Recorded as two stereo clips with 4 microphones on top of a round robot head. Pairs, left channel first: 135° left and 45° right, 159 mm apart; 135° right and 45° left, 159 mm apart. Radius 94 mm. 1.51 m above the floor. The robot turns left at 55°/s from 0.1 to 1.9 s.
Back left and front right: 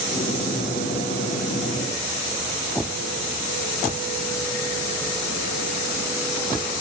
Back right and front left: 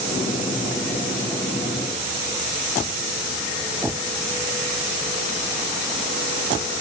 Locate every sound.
Only background noise.